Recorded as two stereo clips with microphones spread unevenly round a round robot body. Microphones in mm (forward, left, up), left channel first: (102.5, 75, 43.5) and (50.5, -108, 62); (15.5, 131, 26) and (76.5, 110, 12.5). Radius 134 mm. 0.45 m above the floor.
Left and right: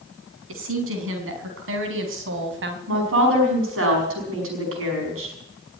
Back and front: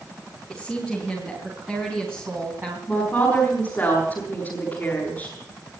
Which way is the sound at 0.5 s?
110° right.